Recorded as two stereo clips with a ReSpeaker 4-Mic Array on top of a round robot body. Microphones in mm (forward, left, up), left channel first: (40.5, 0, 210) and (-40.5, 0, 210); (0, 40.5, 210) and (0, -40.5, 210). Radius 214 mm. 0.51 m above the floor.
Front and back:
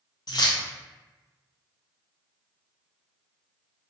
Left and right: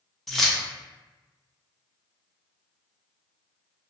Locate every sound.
0.3 s keys jangling: straight ahead, 0.8 m